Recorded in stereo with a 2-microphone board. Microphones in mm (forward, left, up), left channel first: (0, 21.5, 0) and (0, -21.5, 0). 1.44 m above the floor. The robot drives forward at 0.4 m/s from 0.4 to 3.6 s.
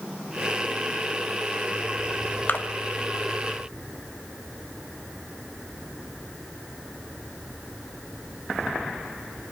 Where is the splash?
45° left (ahead or behind), 1.1 m.